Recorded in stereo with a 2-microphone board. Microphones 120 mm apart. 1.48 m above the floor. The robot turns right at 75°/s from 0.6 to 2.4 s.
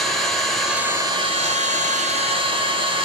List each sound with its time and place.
0.0 s an engine running: straight behind, 0.8 m; by 3.1 s 45° right, 0.8 m